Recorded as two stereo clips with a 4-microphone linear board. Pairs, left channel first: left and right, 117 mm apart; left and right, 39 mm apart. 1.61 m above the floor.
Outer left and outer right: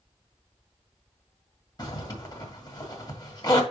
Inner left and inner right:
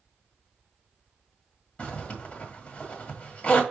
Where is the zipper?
35° left (ahead or behind), 1.7 m.